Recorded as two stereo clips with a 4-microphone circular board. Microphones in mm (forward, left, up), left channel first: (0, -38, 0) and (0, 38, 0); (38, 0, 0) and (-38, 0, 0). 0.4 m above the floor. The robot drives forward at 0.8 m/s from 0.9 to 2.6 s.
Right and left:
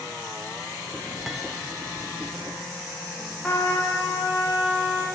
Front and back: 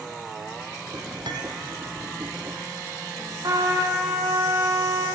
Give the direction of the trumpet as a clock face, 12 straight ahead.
5 o'clock.